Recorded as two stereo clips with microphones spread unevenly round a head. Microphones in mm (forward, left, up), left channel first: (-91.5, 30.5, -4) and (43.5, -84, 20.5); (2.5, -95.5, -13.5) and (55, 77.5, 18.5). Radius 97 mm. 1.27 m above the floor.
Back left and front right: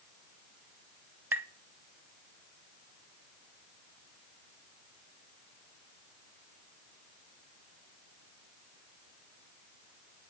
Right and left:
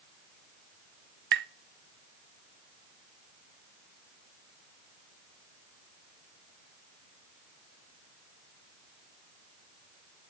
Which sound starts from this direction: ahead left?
Tapping, at 1.3 s.